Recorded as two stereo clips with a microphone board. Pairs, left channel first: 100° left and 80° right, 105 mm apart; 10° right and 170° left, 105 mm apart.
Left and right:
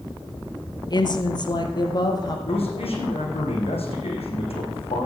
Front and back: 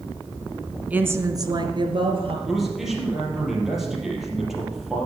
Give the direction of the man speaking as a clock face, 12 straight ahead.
9 o'clock.